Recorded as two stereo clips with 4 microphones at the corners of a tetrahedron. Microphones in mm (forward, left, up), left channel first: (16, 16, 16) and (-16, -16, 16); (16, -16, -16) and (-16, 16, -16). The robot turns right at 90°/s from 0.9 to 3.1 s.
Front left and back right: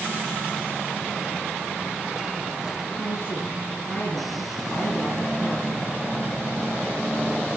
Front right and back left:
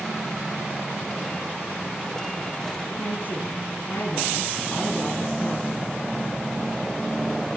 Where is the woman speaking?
20° right, 7 m; by 6.0 s 5° right, 7 m.